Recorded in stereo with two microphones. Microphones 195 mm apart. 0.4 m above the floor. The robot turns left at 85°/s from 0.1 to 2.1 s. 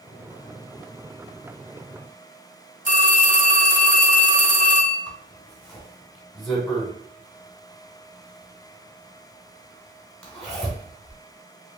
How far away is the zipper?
About 1.4 m.